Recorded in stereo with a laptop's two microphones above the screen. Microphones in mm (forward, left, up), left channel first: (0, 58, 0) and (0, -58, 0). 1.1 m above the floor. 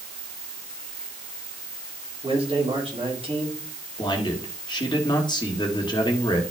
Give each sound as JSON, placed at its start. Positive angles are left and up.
{"t": 2.2, "sound": "a man speaking", "side_deg": -55, "distance_m": 3.0}
{"t": 4.0, "sound": "a man speaking", "side_deg": 40, "distance_m": 1.8}